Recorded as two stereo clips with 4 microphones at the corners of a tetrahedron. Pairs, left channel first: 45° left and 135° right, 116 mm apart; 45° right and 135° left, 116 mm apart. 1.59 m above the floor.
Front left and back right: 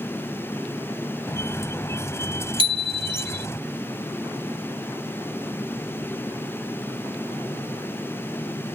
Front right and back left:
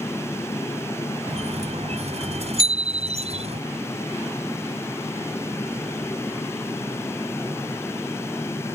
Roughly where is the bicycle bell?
Ahead.